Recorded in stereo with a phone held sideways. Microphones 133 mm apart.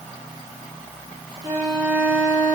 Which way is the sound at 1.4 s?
35° right (ahead or behind).